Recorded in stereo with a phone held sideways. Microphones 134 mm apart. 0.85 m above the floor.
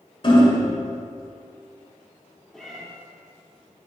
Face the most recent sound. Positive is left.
turn(degrees=0)  # may be behind; listen again after turning